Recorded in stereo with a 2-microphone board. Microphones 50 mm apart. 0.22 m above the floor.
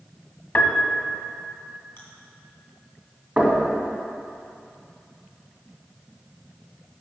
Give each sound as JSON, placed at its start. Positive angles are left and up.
{"t": 0.6, "sound": "a piano", "side_deg": 35, "distance_m": 0.7}
{"t": 2.0, "sound": "chewing", "side_deg": 45, "distance_m": 2.0}
{"t": 3.4, "sound": "knocking", "side_deg": -20, "distance_m": 1.6}